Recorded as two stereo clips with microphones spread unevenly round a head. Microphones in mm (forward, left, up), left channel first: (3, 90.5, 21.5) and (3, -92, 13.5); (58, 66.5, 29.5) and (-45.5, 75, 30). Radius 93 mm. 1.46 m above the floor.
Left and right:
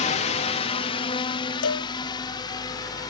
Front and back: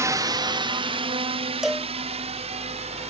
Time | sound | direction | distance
0.0 | a drone | 130° left | ?
1.6 | a cowbell | 90° left | ?